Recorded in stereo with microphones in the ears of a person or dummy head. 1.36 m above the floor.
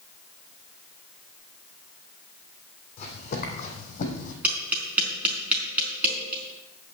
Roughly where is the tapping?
Centre.